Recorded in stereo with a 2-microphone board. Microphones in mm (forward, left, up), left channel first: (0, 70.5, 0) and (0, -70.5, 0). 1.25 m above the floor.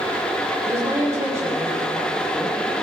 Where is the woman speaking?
20° right (ahead or behind), 8.5 m.